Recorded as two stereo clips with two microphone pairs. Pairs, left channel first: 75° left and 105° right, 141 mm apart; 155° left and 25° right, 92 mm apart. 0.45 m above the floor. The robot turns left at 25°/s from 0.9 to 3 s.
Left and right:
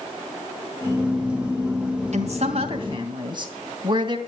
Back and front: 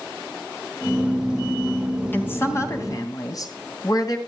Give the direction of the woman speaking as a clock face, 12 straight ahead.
5 o'clock.